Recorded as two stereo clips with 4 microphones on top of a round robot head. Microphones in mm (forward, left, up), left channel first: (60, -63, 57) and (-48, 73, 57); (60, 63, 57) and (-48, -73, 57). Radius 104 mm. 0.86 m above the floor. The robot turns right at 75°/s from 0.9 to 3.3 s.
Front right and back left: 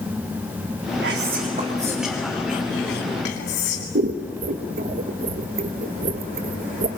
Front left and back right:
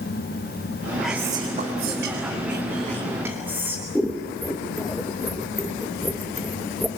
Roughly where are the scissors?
Behind left.